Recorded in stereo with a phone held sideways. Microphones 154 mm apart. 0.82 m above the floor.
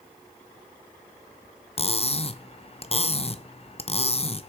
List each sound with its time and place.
1.8 s cutlery clinking: 40° left (ahead or behind), 0.6 m